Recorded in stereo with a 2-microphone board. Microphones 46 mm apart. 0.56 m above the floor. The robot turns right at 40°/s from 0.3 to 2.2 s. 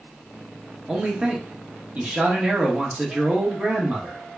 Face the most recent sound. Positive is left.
turn(degrees=-25)  # may be behind; listen again after turning